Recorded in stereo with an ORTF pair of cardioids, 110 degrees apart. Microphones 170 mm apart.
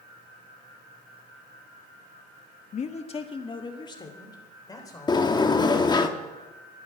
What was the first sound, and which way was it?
A man speaking, 45° left.